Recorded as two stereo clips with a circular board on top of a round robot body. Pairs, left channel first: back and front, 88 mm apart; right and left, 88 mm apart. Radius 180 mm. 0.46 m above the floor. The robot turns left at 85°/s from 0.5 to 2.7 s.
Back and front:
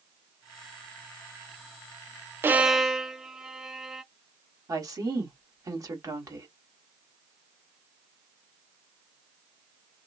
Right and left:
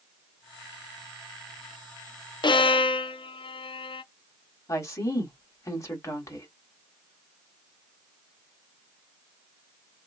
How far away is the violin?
About 0.5 m.